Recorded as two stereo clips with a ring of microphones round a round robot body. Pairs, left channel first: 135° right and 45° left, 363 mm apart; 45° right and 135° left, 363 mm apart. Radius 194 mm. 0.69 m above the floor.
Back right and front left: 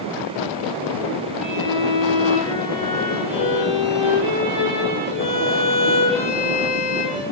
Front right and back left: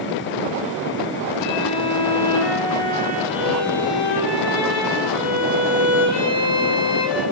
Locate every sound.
1.4 s a violin: 30° right, 5 m